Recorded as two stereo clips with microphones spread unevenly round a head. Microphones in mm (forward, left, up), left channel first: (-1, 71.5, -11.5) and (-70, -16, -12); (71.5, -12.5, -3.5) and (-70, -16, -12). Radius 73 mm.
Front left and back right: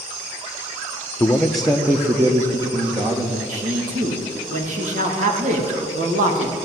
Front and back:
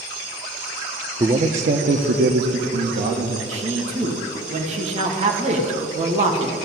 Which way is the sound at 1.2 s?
125° left.